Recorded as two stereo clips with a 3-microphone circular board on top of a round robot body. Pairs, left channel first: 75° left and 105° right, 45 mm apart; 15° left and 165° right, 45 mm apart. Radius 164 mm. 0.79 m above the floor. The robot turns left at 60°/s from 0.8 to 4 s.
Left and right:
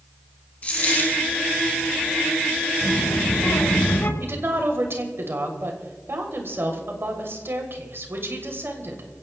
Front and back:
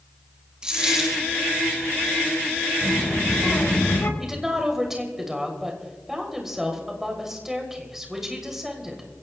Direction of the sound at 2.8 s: 115° left.